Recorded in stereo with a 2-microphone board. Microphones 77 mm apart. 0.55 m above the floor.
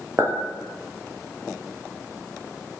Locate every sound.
0.2 s a clink: 40° right (ahead or behind), 0.7 m